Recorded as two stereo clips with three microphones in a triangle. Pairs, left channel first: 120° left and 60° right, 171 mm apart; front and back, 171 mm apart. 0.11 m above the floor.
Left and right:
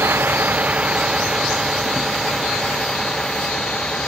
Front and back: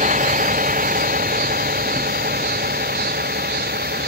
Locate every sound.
0.0 s a vehicle: 140° right; by 4.1 s 155° right